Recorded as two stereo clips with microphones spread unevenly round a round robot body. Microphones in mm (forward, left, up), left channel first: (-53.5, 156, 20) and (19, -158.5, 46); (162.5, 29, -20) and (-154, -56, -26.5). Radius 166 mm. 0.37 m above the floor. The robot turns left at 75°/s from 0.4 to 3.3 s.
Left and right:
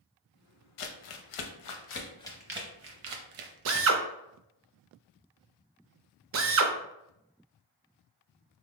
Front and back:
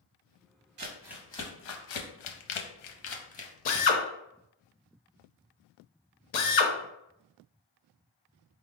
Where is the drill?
30° right, 0.5 m.